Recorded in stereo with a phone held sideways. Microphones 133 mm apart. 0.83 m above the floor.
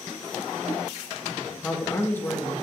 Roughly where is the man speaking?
Centre.